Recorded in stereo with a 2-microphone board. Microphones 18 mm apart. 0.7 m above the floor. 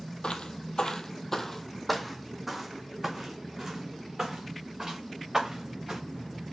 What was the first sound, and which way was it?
Footsteps, 65° left (ahead or behind).